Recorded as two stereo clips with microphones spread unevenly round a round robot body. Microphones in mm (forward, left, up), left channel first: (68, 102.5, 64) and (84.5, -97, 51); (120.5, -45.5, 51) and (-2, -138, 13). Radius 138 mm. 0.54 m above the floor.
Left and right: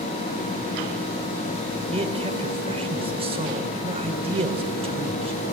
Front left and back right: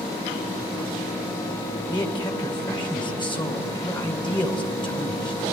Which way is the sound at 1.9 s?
30° right.